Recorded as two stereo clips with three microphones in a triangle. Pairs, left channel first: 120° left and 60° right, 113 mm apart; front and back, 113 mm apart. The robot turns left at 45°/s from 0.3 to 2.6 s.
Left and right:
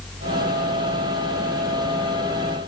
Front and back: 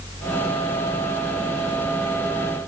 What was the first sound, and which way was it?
Only background noise.